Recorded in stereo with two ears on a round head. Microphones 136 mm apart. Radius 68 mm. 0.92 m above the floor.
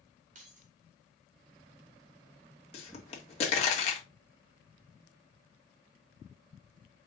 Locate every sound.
0.3 s keys jangling: 50° right (ahead or behind), 1.2 m
2.7 s a pop: 40° left (ahead or behind), 1.5 m